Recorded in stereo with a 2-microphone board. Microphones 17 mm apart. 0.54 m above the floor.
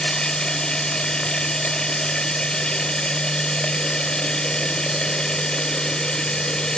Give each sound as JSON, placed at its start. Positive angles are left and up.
{"t": 0.0, "sound": "running water", "side_deg": 75, "distance_m": 1.3}